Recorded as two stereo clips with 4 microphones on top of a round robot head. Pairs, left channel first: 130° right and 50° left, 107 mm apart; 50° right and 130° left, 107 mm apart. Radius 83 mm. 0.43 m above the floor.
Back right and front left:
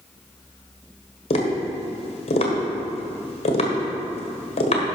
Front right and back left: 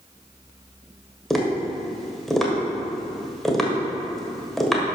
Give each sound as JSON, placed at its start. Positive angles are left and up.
{"t": 1.3, "sound": "tapping", "azimuth_deg": -140, "distance_m": 1.5}